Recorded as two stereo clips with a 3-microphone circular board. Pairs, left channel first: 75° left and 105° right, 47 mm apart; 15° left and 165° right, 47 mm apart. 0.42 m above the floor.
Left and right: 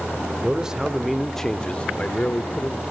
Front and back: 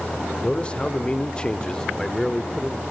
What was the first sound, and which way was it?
A man speaking, 45° right.